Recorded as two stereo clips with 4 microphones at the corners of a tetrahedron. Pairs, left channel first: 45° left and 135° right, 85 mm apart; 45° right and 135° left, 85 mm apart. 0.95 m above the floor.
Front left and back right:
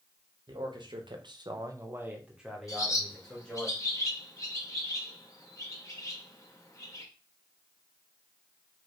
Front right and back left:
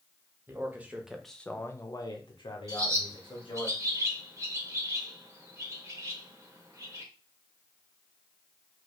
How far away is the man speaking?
About 1.0 m.